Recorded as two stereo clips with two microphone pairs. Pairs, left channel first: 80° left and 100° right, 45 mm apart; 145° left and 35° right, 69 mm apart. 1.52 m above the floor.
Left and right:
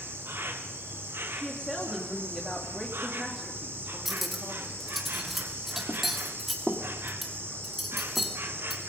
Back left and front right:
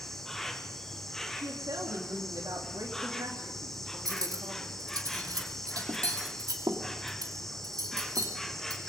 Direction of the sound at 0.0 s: 130° right.